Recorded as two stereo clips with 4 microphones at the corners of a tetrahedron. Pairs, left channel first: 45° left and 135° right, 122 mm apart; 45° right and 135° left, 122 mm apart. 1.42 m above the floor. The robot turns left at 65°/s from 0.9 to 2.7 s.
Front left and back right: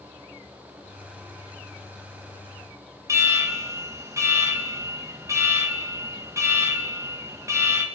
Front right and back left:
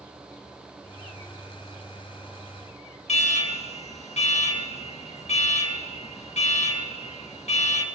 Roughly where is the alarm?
Right.